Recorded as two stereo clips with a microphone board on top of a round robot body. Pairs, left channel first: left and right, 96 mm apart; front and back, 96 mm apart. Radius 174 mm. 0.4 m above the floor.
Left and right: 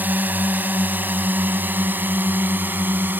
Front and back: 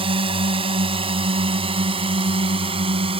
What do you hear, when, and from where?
0.0 s a drone: 160° right